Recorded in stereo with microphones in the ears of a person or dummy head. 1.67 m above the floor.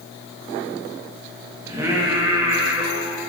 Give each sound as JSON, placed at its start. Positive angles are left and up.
{"t": 1.7, "sound": "singing", "side_deg": -25, "distance_m": 1.5}